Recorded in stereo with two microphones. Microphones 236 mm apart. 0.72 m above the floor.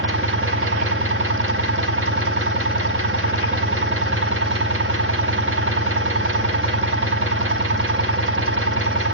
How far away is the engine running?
About 1.4 m.